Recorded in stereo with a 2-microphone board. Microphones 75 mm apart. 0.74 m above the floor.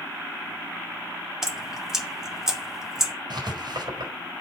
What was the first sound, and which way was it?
Dripping, 5° right (ahead or behind).